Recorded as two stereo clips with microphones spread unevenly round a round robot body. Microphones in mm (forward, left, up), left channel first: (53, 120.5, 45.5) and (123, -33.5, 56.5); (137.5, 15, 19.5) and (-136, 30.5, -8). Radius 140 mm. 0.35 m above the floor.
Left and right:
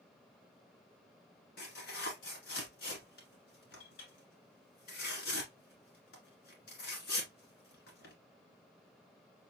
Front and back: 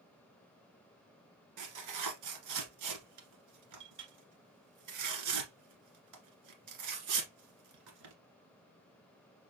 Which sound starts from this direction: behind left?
Tearing paper, at 1.6 s.